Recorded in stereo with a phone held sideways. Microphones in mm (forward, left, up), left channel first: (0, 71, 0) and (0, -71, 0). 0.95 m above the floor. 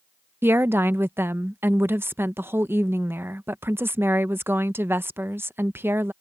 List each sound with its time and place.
0.4 s a woman speaking: 15° right (ahead or behind)